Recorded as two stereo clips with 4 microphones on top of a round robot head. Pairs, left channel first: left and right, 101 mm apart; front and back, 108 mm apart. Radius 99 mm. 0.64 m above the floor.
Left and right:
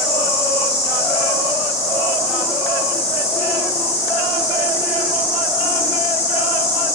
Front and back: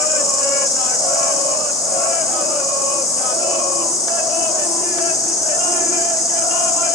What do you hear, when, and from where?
0.0 s an insect: 60° left, 4 m